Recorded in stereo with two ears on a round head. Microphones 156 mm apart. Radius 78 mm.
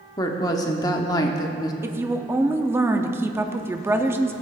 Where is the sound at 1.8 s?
15° right (ahead or behind), 0.5 m.